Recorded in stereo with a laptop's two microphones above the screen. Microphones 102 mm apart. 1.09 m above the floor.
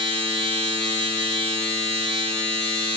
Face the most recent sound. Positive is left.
turn(degrees=-80)